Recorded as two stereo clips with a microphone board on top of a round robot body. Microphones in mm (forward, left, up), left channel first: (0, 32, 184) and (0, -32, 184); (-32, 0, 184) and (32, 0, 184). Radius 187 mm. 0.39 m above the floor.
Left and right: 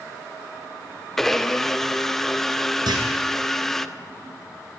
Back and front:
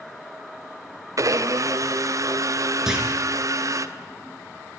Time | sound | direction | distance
1.2 | a blender | 5° left | 1.8 m
2.9 | a clunk | 80° right | 6.5 m